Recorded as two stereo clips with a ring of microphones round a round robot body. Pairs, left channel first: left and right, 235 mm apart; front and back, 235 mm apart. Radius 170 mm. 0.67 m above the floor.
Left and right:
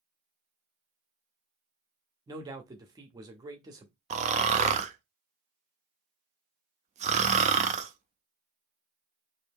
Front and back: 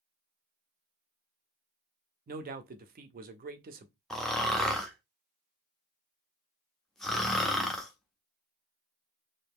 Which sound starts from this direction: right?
Snoring, at 4.1 s.